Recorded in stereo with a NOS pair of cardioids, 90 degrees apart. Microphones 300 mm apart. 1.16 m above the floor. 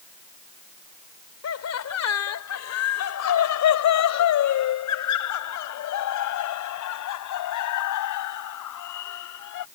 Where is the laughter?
60° left; by 9.6 s 80° left.